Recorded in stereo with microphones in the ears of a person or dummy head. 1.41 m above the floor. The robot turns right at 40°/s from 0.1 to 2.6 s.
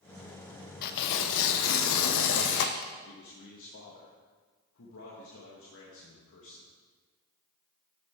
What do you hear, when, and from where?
0.8 s tearing paper: 55° left, 0.7 m; by 2.9 s 125° left, 0.7 m
3.0 s a man speaking: 70° left (ahead or behind), 1.7 m